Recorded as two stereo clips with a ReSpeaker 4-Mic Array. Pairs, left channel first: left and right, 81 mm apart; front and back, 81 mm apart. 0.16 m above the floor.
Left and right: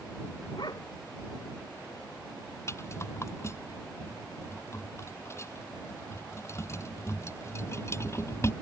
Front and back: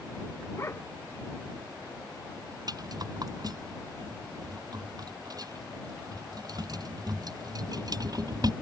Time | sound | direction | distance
0.6 | a dog barking | 55° left | ?
2.7 | a rattle | 145° left | ?